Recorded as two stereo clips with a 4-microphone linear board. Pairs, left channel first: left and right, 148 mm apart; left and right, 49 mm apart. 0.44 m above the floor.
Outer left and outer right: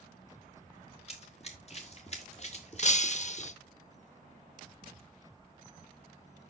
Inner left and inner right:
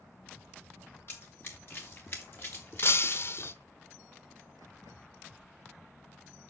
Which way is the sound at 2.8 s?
50° left (ahead or behind).